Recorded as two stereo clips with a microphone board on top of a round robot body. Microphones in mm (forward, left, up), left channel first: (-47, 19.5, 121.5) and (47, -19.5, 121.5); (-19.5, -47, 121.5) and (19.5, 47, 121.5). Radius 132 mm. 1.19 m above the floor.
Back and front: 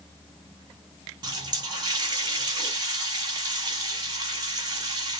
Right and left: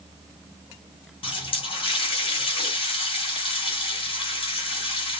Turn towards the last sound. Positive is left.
turn(degrees=-75)